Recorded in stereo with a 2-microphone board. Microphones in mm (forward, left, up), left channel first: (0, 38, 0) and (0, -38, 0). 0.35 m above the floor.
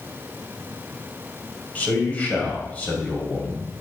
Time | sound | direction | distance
1.8 | a man speaking | 20° left (ahead or behind) | 2 m